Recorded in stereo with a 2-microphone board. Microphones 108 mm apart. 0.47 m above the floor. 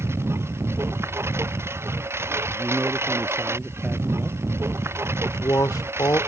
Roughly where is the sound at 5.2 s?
Left.